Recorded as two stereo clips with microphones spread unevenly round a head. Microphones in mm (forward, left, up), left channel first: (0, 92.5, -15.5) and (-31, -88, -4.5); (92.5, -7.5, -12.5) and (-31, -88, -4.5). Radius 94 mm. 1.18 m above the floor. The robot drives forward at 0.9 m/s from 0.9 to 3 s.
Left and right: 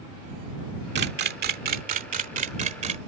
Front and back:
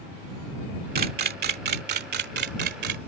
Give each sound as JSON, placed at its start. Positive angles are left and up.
{"t": 0.9, "sound": "a camera shutter", "azimuth_deg": -130}